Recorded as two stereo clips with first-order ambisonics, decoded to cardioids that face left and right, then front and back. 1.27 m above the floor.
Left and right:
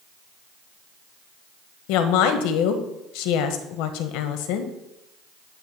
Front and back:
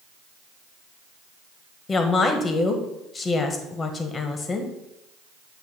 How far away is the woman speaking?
About 1.0 m.